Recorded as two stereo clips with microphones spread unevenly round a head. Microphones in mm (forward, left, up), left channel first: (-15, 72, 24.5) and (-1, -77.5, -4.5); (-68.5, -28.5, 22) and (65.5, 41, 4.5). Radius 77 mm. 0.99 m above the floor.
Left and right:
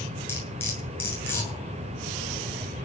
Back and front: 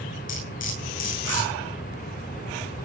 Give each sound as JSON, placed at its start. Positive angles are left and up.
{"t": 0.3, "sound": "cutlery clinking", "azimuth_deg": 170, "distance_m": 9.0}